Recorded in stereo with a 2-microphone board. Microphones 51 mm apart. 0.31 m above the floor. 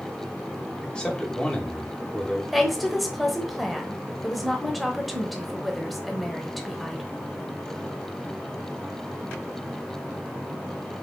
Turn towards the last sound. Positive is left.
turn(degrees=0)  # may be behind; listen again after turning